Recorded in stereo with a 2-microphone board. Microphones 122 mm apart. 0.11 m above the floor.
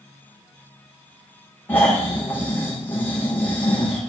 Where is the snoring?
15° left (ahead or behind), 4 m.